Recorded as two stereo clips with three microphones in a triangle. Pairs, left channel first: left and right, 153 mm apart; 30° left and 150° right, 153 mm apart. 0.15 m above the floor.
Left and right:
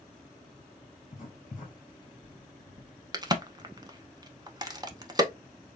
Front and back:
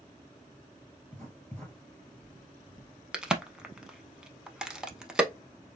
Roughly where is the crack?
Right.